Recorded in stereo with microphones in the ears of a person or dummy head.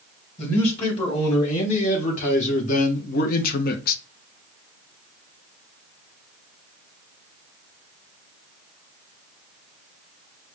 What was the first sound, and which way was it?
A man speaking, 35° left (ahead or behind).